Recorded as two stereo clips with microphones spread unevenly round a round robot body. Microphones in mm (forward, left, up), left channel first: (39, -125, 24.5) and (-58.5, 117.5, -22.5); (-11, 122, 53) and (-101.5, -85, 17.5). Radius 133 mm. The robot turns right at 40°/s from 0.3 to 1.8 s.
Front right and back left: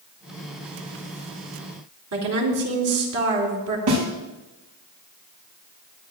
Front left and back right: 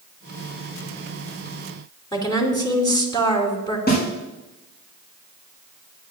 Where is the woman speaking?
140° left, 4 m.